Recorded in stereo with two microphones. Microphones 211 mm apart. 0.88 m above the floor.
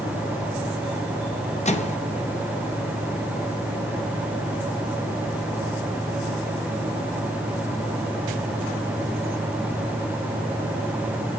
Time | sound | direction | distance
1.6 | a microwave | 30° left (ahead or behind) | 0.7 m